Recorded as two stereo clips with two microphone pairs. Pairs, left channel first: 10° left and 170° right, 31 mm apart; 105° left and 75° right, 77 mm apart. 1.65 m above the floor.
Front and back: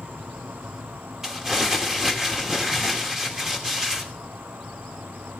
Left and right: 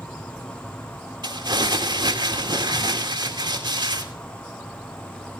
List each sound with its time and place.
0.0 s an insect: straight behind, 1.2 m
1.2 s crumpling: 95° right, 2.5 m